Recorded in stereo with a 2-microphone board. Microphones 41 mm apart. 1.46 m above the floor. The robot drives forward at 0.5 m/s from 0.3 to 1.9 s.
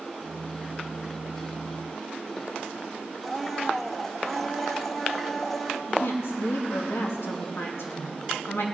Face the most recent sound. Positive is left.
turn(degrees=85)